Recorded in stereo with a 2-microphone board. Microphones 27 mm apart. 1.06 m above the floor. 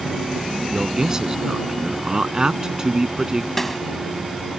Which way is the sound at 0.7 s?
20° right (ahead or behind).